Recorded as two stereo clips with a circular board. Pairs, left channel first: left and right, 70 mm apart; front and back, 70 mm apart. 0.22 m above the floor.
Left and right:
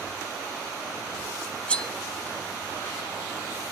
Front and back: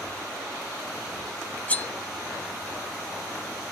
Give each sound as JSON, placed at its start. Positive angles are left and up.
{"t": 1.7, "sound": "cutlery clinking", "azimuth_deg": 40, "distance_m": 0.6}